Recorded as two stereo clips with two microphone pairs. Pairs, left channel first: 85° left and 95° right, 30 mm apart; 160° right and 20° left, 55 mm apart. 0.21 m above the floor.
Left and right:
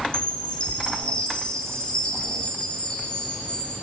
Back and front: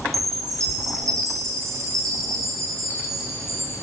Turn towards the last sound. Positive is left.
turn(degrees=25)